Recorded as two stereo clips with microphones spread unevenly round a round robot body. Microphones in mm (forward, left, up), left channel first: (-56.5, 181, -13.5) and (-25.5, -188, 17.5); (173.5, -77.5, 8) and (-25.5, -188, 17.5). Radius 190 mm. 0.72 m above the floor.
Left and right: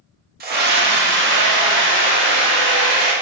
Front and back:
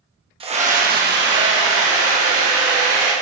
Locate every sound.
0.4 s a scream: 125° right, 1.2 m; by 3.1 s 150° right, 3 m